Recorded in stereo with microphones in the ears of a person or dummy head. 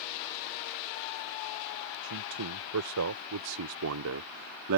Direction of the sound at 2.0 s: 75° right (ahead or behind).